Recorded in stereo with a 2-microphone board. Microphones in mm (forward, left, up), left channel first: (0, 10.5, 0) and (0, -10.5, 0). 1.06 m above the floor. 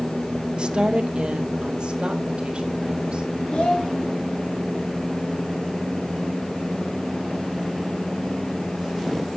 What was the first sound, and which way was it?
A woman speaking, 50° right (ahead or behind).